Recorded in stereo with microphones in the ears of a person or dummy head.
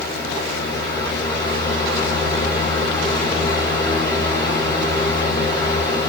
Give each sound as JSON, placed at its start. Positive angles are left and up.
{"t": 0.0, "sound": "a fan", "side_deg": 20, "distance_m": 1.0}